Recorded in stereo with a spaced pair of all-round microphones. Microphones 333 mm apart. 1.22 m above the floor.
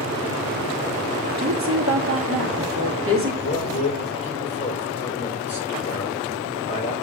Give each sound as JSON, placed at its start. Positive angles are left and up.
{"t": 1.4, "sound": "a woman speaking", "side_deg": -40, "distance_m": 2.5}
{"t": 3.4, "sound": "a man speaking", "side_deg": 45, "distance_m": 5.0}